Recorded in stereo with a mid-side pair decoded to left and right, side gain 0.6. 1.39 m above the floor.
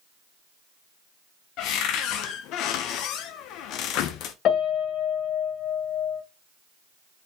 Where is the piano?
55° left, 0.8 m.